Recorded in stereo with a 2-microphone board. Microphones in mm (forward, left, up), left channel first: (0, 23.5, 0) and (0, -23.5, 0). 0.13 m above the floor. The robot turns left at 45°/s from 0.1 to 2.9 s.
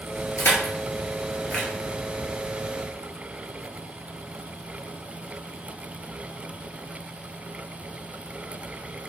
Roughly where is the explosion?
No explosion in this recording.